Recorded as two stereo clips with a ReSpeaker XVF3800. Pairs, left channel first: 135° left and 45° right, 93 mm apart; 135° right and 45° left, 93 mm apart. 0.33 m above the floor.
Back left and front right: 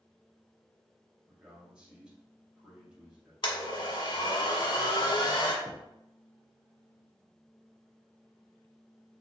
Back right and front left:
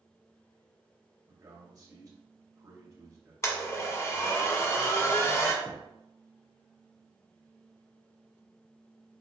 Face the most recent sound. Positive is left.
turn(degrees=160)